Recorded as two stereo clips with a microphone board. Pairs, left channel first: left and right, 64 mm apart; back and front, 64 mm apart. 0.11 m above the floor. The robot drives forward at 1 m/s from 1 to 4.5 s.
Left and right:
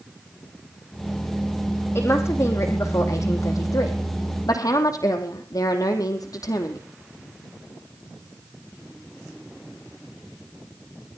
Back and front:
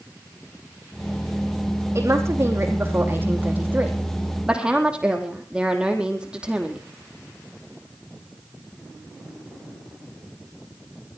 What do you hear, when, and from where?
1.9 s a woman speaking: 45° left, 5 m; by 6.8 s 75° left, 3.5 m